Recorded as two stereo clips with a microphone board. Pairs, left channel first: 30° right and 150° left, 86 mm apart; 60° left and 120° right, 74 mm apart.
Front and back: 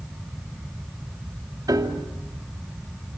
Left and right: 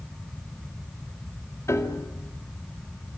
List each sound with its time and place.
1.7 s a piano: 105° left, 2.5 m